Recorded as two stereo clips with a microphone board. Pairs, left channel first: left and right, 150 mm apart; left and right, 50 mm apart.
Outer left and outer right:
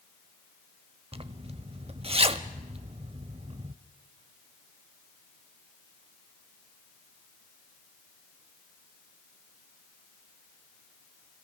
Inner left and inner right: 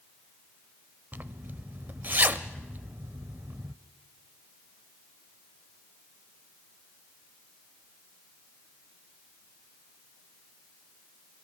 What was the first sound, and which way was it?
A zipper, 40° right (ahead or behind).